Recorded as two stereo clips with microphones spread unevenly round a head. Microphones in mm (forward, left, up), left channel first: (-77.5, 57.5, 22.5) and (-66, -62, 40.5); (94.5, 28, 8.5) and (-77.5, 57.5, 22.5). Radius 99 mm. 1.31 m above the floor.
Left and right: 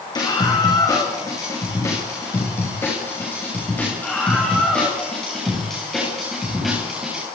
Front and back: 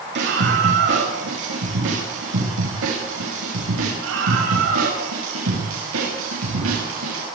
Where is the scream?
150° left, 6.5 m; by 7.2 s 170° right, 7.5 m.